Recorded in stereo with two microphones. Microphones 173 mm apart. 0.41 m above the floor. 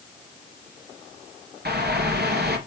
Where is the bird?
70° right (ahead or behind), 2.5 m.